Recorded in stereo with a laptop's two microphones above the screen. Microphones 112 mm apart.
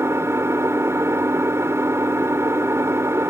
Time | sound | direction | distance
0.0 | an engine running | 25° right (ahead or behind) | ?